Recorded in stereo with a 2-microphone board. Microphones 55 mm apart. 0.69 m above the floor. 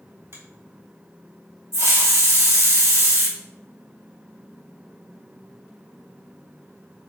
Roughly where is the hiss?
Right.